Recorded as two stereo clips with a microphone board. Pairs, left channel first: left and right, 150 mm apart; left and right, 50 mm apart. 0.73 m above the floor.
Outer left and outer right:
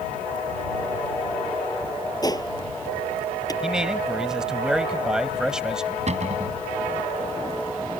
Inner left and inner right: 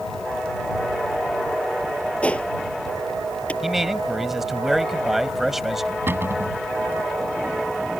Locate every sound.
2.2 s a gunshot: 25° left (ahead or behind)
3.6 s a man speaking: 5° right (ahead or behind)
6.1 s a cupboard door: 50° right (ahead or behind)